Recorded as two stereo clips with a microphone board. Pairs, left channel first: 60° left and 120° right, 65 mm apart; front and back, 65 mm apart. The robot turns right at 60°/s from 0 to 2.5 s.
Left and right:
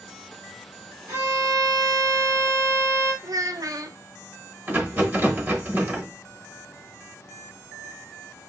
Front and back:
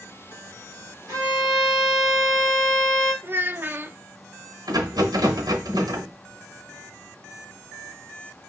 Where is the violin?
160° right, 3.5 m; by 3.1 s 75° right, 3.5 m.